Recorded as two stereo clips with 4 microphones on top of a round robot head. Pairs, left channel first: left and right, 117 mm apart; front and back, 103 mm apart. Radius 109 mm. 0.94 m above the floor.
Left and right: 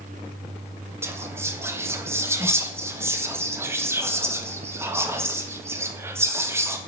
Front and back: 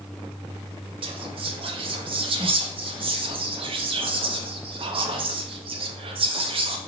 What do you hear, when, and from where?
1.0 s whispering: 160° right, 0.6 m